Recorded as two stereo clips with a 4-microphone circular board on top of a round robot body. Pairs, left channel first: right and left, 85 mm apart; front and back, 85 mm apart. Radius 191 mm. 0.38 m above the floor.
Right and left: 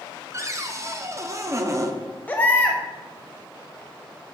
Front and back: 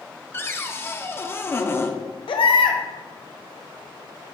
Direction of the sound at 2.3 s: 20° right.